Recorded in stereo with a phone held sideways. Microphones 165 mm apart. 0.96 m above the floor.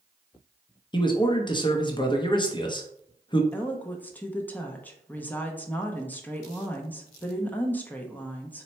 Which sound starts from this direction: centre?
A woman speaking, at 3.5 s.